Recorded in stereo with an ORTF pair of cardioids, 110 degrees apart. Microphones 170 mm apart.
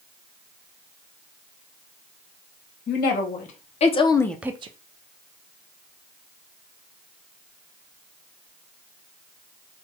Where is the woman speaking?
55° left, 1.6 m; by 4.7 s 40° right, 0.5 m.